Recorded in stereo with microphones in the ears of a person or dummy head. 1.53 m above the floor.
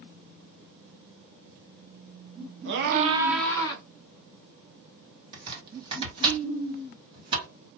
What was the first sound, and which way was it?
A scream, 70° right (ahead or behind).